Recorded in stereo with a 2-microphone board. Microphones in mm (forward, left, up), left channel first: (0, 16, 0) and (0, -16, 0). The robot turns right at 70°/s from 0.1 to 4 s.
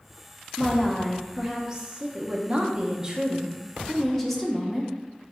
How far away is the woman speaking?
About 0.6 m.